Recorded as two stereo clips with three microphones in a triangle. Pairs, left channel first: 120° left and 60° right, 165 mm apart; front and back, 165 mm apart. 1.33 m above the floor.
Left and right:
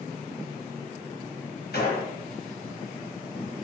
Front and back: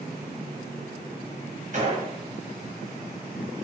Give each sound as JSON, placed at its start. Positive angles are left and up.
{"t": 1.7, "sound": "a gunshot", "azimuth_deg": 135, "distance_m": 1.0}